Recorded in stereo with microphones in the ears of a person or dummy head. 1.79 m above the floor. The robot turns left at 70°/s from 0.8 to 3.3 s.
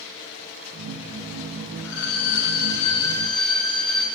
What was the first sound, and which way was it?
A violin, 105° left.